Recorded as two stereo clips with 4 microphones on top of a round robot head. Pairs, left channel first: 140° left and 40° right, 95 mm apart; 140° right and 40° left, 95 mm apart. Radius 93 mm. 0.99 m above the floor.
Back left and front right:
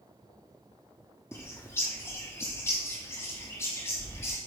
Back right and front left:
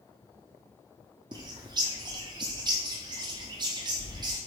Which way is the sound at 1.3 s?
80° left.